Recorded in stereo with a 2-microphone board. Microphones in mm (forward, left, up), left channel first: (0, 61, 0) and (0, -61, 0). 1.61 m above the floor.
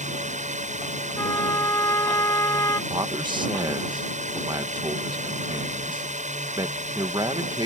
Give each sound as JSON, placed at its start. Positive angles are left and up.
{"t": 0.0, "sound": "a drone", "side_deg": -80}
{"t": 1.2, "sound": "a trumpet", "side_deg": 25}
{"t": 2.9, "sound": "a man speaking", "side_deg": -40}